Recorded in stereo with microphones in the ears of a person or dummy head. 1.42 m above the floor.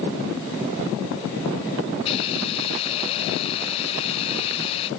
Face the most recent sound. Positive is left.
turn(degrees=30)  # may be behind; listen again after turning